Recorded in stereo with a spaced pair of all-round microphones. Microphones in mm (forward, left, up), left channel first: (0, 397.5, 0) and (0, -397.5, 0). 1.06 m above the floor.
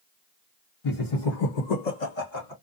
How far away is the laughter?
About 0.8 m.